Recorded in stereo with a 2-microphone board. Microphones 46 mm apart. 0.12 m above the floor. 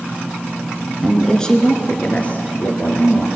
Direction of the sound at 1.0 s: 5° left (ahead or behind).